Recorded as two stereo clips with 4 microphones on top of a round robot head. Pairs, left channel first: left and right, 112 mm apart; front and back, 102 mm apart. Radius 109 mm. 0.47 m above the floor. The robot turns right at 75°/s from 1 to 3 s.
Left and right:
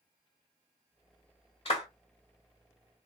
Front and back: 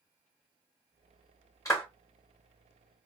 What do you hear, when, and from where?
1.6 s a clap: 55° left, 1.9 m; by 1.9 s 75° left, 1.9 m